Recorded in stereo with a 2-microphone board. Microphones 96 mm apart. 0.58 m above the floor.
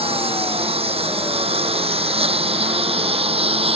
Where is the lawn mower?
85° right.